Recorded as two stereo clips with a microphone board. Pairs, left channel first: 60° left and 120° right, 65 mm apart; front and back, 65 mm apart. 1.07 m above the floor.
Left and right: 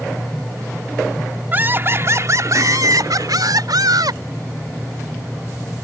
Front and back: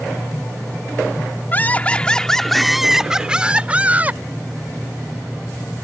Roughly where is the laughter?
Ahead right.